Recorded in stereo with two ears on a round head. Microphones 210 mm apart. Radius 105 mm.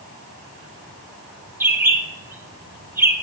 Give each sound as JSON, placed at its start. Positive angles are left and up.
{"t": 1.6, "sound": "a bird", "side_deg": -10, "distance_m": 0.6}